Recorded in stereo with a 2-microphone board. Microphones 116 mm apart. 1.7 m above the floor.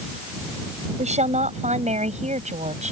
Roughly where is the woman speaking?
Right.